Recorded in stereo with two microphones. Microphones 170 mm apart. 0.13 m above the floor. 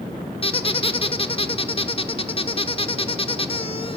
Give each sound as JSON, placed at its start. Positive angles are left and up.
{"t": 0.4, "sound": "a squeak", "side_deg": 35, "distance_m": 0.5}